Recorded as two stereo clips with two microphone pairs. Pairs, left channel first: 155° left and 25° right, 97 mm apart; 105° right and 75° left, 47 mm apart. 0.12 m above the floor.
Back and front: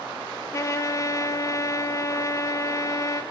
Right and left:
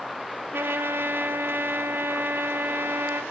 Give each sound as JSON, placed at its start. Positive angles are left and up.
{"t": 0.5, "sound": "a trumpet", "azimuth_deg": 105, "distance_m": 0.7}